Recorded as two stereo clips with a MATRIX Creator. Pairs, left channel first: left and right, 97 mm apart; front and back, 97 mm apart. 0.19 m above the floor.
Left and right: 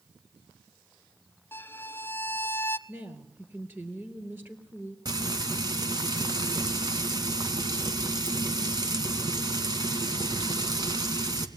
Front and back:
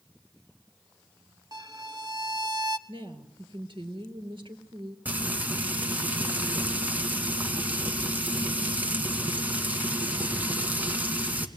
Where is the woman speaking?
155° right, 4 m.